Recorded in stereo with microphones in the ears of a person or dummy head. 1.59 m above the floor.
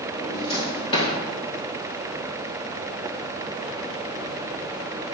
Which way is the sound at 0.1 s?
25° left (ahead or behind).